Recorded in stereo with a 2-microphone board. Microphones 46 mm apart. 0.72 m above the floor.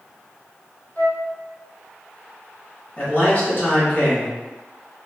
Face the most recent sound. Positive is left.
turn(degrees=35)  # may be behind; listen again after turning